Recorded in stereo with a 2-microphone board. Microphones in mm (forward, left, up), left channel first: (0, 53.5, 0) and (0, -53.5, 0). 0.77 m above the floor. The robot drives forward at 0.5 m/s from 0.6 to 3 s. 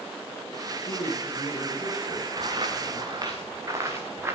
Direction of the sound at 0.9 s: 45° left (ahead or behind).